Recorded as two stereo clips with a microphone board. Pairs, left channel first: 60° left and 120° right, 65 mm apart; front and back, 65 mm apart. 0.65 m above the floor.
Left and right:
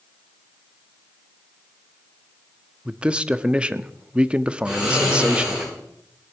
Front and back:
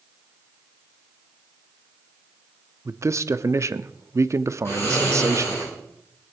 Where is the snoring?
50° right, 8 m.